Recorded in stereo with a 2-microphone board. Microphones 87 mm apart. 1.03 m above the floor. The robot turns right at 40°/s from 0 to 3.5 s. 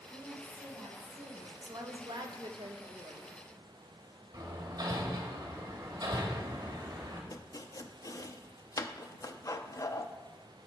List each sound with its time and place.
0.1 s a woman speaking: 130° right, 4 m; by 1.5 s 75° right, 4 m
1.6 s a woman speaking: 130° right, 1.1 m; by 3.4 s 60° right, 1.1 m
4.3 s hammering: 45° right (ahead or behind), 1.8 m
7.3 s chopping: 40° left (ahead or behind), 0.5 m